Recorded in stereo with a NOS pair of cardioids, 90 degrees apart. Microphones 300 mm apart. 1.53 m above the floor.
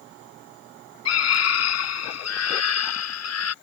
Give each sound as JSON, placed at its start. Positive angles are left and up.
{"t": 1.1, "sound": "a scream", "azimuth_deg": 55}